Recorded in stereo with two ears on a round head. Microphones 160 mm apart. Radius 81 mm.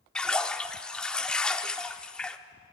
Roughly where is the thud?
I don't hear a thud.